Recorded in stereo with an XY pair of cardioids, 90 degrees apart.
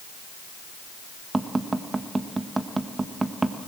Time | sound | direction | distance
1.3 | tapping | 25° right | 1.5 m